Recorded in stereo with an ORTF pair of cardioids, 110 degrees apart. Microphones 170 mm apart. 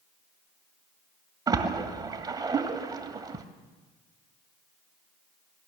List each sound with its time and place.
1.5 s a splash: 25° right, 2 m